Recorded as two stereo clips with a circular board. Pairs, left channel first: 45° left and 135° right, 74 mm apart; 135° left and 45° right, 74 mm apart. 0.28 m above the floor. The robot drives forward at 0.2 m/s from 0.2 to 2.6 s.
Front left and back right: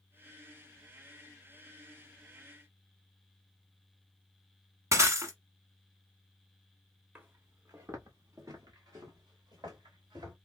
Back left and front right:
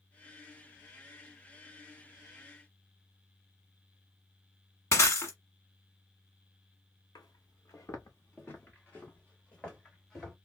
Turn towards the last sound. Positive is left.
turn(degrees=-145)